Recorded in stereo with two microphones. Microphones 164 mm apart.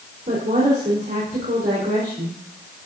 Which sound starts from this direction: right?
A woman speaking, at 0.3 s.